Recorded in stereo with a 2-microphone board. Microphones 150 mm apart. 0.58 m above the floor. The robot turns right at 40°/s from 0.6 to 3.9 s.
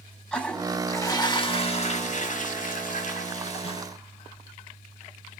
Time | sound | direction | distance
0.3 | a toilet flushing | 10° left | 0.8 m